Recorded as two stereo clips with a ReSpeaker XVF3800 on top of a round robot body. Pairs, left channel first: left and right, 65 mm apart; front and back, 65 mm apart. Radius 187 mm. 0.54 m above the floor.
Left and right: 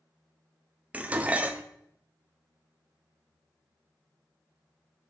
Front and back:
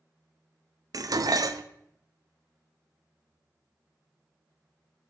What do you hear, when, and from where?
0.9 s dishes clattering: 155° right, 0.8 m